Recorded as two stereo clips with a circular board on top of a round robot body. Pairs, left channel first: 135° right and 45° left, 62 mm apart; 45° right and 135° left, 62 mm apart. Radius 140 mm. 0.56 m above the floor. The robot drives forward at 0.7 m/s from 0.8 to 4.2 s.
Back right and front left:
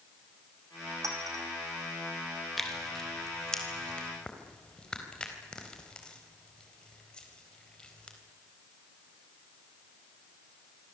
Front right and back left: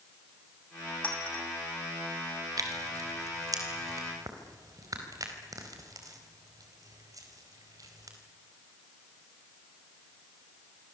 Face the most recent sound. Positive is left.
turn(degrees=150)